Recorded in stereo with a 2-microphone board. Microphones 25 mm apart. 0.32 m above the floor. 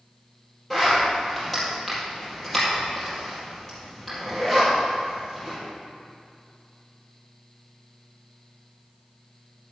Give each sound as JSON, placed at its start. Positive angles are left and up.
{"t": 0.7, "sound": "a zipper", "side_deg": 10, "distance_m": 4.0}